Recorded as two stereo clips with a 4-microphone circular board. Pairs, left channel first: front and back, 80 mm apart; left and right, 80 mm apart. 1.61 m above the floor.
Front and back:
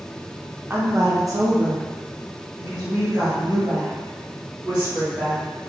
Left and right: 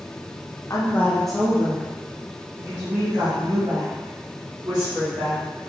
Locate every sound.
0.7 s a woman speaking: 125° left, 0.6 m; by 5.5 s 115° right, 2.5 m